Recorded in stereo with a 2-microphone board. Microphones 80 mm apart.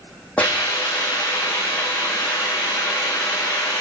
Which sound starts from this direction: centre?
A hiss, at 0.4 s.